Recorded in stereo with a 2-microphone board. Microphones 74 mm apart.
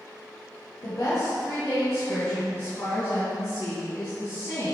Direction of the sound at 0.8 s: 40° left (ahead or behind).